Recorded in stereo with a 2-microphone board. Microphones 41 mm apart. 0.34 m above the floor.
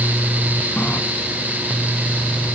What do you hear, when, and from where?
0.8 s a running tap: 45° left (ahead or behind), 2.5 m